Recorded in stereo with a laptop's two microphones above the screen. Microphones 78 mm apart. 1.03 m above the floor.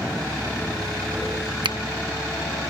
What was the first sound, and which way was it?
A finger snap, 80° right.